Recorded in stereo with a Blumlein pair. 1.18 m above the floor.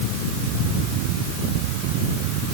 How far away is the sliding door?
I don't hear a sliding door.